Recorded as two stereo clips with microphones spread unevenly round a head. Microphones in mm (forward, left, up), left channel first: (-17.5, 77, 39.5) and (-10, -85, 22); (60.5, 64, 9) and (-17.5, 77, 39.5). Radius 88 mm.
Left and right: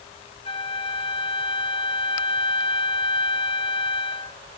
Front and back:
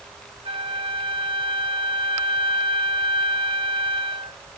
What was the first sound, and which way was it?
A flute, 150° left.